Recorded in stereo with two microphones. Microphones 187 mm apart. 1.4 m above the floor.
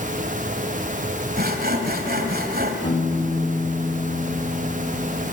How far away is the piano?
About 3.5 m.